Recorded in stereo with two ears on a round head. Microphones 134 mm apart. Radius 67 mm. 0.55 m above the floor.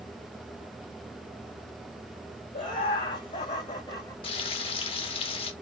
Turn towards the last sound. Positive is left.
turn(degrees=35)  # may be behind; listen again after turning